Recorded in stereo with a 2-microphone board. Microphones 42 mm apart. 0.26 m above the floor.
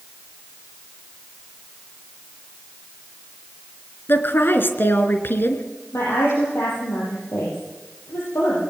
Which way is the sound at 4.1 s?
55° left (ahead or behind).